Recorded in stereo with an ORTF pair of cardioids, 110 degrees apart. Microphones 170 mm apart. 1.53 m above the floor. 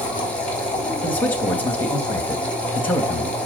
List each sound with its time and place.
0.0 s a machine running: 10° left, 4.5 m
1.0 s a man speaking: 10° left, 3 m